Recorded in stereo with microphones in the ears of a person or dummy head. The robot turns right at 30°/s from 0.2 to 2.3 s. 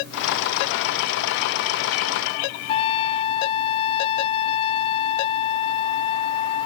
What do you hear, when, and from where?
2.7 s a trumpet: 35° left (ahead or behind)